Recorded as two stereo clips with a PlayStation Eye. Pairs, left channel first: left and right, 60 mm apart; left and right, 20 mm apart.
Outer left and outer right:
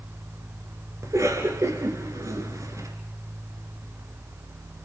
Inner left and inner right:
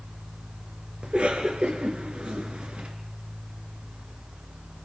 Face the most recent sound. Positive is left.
turn(degrees=-60)  # may be behind; listen again after turning